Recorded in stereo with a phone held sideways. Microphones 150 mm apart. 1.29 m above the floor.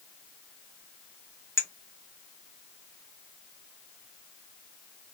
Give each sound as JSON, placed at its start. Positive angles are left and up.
{"t": 1.6, "sound": "a clink", "side_deg": 15, "distance_m": 0.6}